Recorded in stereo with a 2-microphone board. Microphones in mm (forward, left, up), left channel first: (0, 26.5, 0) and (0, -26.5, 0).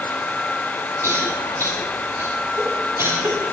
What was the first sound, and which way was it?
A cough, 70° right (ahead or behind).